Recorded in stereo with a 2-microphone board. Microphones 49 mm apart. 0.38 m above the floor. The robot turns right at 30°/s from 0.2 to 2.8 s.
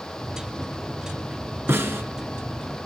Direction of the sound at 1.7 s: 65° right (ahead or behind).